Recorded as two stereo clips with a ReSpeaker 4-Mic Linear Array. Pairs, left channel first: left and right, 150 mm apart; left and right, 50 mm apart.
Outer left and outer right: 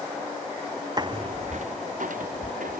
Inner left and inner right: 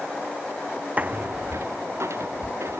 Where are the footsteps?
30° right (ahead or behind); by 2.8 s 75° right (ahead or behind).